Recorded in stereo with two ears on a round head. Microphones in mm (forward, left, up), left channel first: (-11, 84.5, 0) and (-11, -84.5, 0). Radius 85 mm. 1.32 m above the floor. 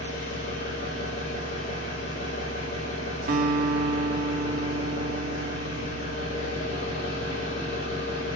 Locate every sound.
0.0 s an engine running: 45° left (ahead or behind), 6 m
3.3 s a guitar: 50° right (ahead or behind), 0.9 m